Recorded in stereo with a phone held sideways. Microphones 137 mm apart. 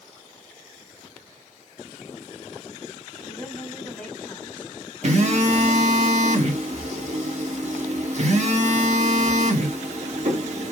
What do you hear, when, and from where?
3.2 s a woman speaking: 10° left (ahead or behind), 1.4 m
5.0 s a phone buzzing: 55° right (ahead or behind), 0.8 m